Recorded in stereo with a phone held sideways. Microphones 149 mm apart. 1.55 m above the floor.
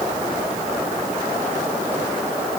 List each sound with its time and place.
Only background noise.